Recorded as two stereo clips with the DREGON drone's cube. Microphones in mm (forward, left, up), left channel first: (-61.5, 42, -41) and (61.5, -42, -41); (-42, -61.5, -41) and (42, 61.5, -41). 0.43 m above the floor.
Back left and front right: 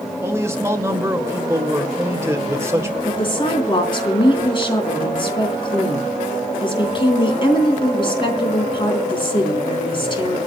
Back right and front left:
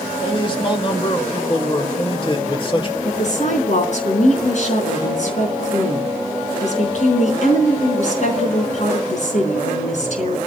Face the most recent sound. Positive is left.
turn(degrees=-160)